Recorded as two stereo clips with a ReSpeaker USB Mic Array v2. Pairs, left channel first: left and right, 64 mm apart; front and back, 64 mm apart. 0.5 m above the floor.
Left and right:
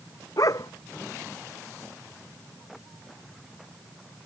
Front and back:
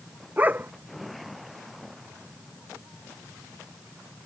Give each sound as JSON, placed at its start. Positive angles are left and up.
{"t": 0.4, "sound": "a dog barking", "azimuth_deg": 115}